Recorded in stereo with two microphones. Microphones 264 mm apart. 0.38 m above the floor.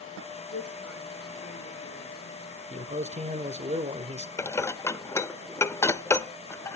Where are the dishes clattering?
10° left (ahead or behind), 0.7 m.